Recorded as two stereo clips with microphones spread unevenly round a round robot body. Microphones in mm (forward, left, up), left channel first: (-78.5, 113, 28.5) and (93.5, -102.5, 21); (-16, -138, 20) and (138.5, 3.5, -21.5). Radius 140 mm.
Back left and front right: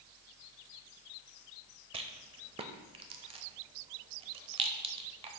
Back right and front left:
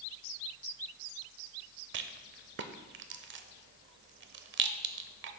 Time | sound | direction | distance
1.9 | a rattle | 15° left | 0.6 m